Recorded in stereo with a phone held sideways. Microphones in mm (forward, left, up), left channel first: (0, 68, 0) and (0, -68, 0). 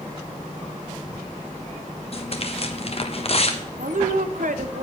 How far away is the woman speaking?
About 1.0 m.